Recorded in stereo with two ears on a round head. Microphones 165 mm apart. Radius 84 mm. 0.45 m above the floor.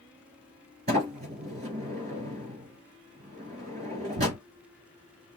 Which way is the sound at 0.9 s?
35° right (ahead or behind).